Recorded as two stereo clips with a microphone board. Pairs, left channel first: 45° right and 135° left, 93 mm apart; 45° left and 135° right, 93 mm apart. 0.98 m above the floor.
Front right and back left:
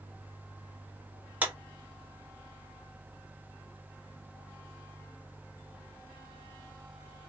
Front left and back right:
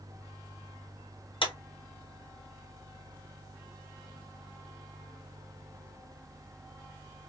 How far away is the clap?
About 1.6 m.